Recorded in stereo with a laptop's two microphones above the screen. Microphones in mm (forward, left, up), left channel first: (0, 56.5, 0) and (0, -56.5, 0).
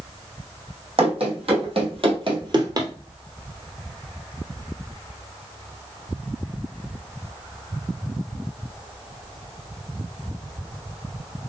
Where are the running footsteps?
55° right (ahead or behind), 2 m; by 2.9 s 30° right (ahead or behind), 1.2 m.